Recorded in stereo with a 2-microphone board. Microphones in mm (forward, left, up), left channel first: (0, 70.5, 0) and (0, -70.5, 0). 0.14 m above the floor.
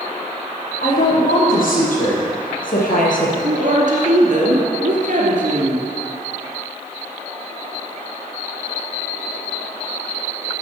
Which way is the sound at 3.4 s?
55° right (ahead or behind).